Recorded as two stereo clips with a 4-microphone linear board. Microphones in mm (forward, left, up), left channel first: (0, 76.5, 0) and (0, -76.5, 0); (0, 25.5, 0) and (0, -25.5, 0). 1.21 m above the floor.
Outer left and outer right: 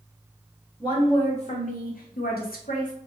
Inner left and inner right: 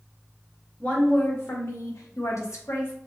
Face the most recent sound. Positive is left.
turn(degrees=55)  # may be behind; listen again after turning